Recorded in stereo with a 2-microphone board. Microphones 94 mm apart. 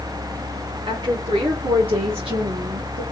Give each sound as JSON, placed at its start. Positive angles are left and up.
{"t": 0.9, "sound": "a woman speaking", "side_deg": -60, "distance_m": 1.8}